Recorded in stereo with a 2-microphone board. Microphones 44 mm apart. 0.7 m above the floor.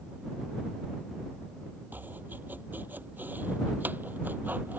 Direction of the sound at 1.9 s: 40° right (ahead or behind).